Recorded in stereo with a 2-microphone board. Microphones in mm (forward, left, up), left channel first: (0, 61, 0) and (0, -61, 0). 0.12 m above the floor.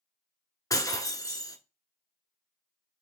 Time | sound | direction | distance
0.7 | breaking glass | 30° left (ahead or behind) | 0.7 m